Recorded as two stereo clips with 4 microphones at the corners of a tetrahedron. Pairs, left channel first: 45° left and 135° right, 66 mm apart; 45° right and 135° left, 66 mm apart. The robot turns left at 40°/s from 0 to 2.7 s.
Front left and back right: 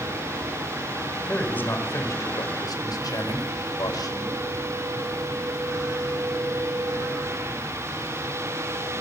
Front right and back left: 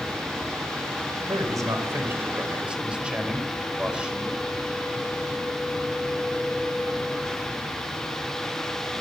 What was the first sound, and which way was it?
A man speaking, 120° left.